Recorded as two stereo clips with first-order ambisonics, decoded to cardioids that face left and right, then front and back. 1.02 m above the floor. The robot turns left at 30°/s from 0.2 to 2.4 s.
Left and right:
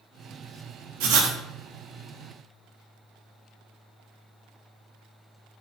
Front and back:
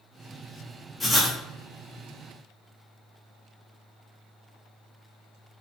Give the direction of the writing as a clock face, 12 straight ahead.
3 o'clock.